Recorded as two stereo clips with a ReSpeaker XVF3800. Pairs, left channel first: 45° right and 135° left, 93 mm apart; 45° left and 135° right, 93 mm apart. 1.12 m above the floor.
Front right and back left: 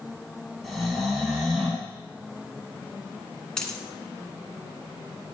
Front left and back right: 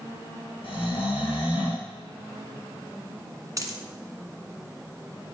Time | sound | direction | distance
0.6 | snoring | 45° left | 7 m
3.6 | a dropped coin | 125° right | 1.3 m